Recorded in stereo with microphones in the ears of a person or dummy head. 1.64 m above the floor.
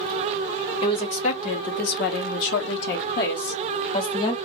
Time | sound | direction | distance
0.8 | a woman speaking | 35° left (ahead or behind) | 1.2 m